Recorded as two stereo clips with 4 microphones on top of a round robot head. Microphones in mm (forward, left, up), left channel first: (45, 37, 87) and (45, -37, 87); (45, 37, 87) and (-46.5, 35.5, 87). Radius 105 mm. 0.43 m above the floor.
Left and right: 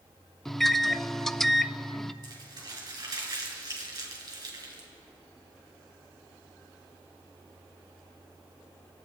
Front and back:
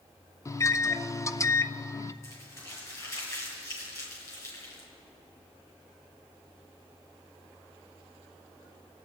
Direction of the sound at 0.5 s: 5° left.